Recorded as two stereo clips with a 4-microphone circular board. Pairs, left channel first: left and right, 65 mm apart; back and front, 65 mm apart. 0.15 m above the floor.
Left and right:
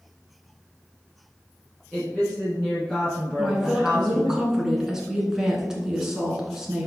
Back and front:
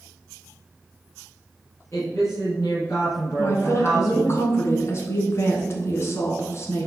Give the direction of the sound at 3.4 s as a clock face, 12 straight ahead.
6 o'clock.